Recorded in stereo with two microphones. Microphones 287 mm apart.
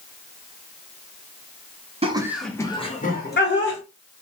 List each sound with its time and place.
2.0 s laughter: 20° right (ahead or behind), 0.6 m; by 3.8 s 45° left (ahead or behind), 1.0 m